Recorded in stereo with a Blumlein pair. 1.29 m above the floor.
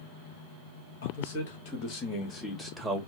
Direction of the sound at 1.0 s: 55° left.